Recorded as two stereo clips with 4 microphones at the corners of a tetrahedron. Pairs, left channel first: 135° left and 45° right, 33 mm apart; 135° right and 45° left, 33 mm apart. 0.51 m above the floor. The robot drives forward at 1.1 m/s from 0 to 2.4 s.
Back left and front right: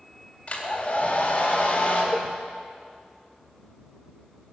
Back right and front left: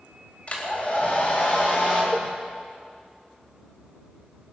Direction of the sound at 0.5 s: Straight behind.